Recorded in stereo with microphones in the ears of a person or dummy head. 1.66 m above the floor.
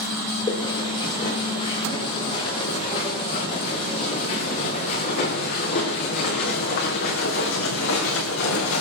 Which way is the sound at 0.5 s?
25° left (ahead or behind).